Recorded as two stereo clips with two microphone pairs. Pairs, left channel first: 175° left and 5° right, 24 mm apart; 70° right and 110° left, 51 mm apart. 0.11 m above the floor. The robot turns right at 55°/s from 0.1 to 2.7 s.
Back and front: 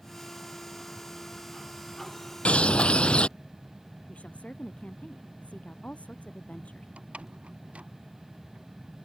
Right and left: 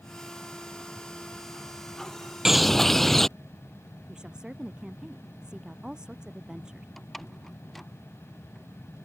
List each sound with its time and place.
2.5 s a bird: 170° right; by 3.3 s 155° right
4.1 s a woman speaking: 175° right
7.0 s a door slam: 15° left